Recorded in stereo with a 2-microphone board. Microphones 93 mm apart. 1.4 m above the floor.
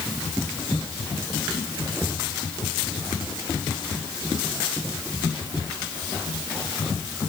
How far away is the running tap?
No running tap in this recording.